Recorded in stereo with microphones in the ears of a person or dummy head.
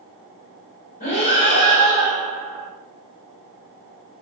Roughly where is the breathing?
Left.